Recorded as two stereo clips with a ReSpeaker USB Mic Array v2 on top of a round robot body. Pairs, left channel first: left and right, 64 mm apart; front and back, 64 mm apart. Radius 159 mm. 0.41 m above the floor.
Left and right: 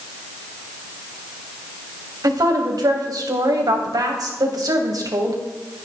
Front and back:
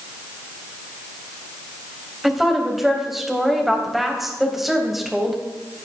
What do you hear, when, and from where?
2.2 s a woman speaking: 95° right, 3.5 m